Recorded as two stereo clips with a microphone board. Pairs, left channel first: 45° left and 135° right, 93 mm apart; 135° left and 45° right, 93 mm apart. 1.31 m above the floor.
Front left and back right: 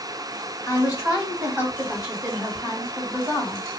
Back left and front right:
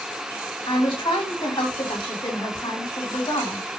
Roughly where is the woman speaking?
Behind left.